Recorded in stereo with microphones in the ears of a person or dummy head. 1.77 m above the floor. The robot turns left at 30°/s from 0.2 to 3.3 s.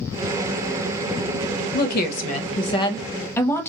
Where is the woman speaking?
55° left, 0.7 m; by 3.7 s 10° left, 0.7 m.